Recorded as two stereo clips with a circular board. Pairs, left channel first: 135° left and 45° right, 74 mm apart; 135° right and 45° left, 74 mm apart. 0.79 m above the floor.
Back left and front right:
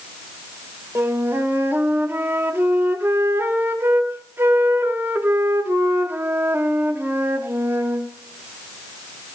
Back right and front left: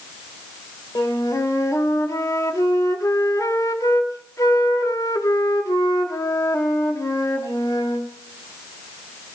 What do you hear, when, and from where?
0.9 s a flute: 100° right, 1.5 m